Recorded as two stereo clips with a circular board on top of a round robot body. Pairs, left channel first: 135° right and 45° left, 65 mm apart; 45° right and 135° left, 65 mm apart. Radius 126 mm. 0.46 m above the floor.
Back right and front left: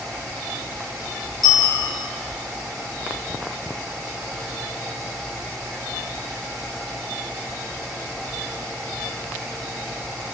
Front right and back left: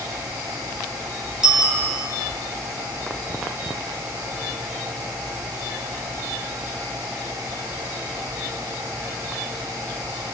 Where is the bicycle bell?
145° right, 3 m.